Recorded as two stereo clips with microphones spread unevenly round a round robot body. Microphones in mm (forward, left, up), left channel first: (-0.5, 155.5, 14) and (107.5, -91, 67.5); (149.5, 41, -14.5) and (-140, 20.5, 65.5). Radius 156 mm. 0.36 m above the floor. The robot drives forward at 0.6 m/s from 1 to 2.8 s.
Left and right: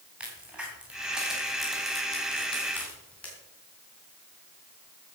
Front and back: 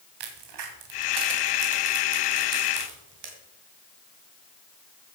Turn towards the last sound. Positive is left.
turn(degrees=-165)